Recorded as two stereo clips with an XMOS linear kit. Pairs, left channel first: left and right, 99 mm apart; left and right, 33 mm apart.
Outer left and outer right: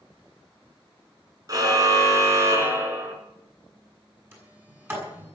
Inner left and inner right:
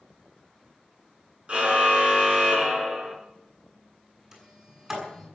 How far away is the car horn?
About 4 m.